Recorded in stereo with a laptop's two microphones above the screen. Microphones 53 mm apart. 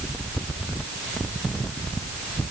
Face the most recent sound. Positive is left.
No sound to turn to.